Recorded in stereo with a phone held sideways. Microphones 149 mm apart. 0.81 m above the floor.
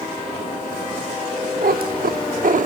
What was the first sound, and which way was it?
A cat meowing, 80° right.